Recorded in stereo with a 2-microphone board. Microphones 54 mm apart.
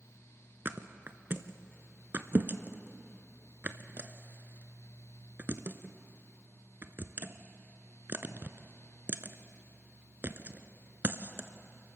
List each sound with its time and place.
0.7 s a thud: 40° right (ahead or behind), 0.8 m